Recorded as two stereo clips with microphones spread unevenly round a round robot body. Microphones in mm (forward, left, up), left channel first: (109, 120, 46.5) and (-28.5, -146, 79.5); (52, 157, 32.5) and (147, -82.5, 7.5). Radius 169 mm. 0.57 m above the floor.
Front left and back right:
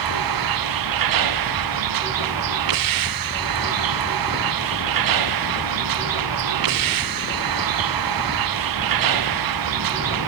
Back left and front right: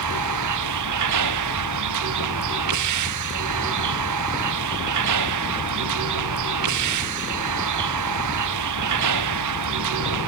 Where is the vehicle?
105° right.